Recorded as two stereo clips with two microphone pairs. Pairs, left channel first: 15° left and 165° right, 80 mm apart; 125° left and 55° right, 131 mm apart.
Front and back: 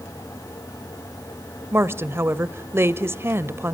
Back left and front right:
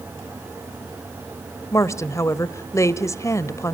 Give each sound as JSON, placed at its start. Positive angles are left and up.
{"t": 1.7, "sound": "a woman speaking", "azimuth_deg": 175, "distance_m": 1.0}